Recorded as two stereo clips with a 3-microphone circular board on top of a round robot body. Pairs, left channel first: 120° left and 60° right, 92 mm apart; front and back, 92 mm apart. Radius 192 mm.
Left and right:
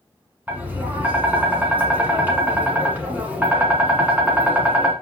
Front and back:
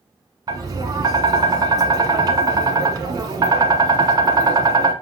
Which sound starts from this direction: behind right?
Tapping, at 0.5 s.